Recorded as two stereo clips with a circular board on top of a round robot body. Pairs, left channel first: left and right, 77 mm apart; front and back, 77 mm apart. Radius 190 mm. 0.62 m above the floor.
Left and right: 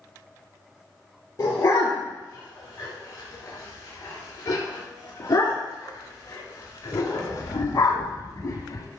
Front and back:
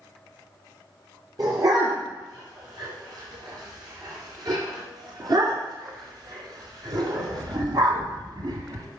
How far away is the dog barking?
About 6 m.